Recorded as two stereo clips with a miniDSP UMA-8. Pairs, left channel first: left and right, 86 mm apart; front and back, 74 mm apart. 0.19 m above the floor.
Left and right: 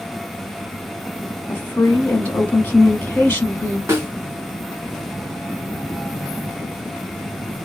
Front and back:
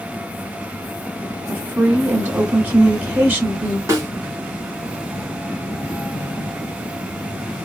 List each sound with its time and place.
1.5 s a woman speaking: 135° left, 1.5 m
3.9 s a snare drum: 145° right, 2 m